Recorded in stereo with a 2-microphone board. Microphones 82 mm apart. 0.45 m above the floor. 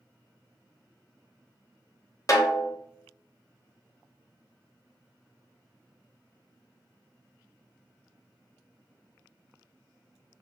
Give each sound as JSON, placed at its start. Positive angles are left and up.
{"t": 2.3, "sound": "a snare drum", "side_deg": 45, "distance_m": 0.8}